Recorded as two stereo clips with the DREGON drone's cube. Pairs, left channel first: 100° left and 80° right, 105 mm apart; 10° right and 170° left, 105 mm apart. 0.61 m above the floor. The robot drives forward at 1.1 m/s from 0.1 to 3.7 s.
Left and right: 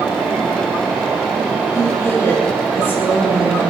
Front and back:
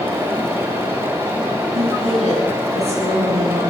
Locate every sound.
1.7 s a woman speaking: 165° left, 9.5 m; by 3.7 s 170° left, 11.5 m